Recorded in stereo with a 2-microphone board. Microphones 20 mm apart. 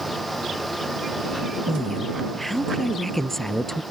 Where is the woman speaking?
10° left (ahead or behind); by 3.8 s 20° left (ahead or behind).